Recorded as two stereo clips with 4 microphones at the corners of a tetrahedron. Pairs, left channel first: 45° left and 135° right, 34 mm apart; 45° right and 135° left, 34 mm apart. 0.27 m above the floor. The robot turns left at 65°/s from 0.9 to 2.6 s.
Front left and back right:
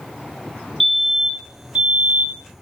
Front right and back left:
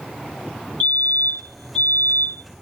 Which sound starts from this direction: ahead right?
A fire alarm, at 0.8 s.